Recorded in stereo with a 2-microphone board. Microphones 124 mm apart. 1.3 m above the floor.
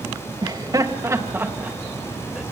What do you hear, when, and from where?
0.4 s laughter: 35° right (ahead or behind), 1.9 m; by 2.4 s 5° right (ahead or behind), 2 m